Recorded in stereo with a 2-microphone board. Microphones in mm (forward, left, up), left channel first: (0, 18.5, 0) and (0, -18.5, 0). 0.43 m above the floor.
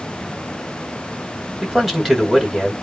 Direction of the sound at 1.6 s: 5° right (ahead or behind).